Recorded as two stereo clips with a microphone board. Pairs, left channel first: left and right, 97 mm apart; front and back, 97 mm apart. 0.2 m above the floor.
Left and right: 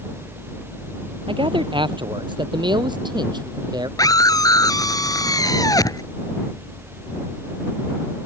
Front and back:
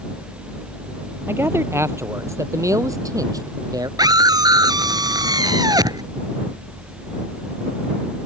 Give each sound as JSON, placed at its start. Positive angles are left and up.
{"t": 1.3, "sound": "a man speaking", "azimuth_deg": -115}
{"t": 4.0, "sound": "a scream", "azimuth_deg": 135}